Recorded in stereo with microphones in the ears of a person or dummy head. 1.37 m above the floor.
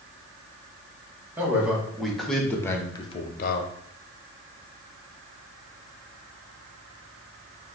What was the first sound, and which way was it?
A man speaking, 10° right (ahead or behind).